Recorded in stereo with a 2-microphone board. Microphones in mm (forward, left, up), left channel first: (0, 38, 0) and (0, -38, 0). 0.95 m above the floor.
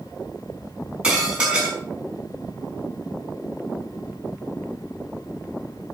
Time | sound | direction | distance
1.0 | dishes clattering | 15° right (ahead or behind) | 5 m